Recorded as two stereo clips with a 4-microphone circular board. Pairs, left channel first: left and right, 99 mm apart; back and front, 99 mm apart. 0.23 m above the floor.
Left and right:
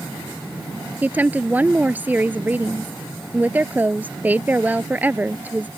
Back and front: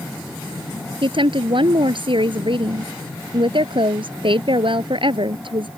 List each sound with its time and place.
1.0 s a woman speaking: 20° right